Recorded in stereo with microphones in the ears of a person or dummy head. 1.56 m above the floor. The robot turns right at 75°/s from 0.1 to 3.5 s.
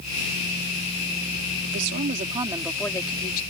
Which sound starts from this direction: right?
A woman speaking, at 1.6 s.